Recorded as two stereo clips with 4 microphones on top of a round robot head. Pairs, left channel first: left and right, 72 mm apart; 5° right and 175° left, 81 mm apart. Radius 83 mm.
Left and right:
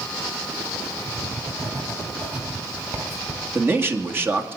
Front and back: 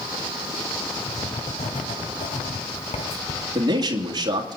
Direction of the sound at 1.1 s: 20° right.